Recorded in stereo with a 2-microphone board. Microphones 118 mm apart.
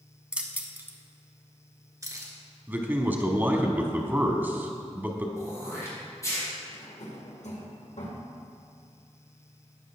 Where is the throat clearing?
25° left (ahead or behind), 3.5 m.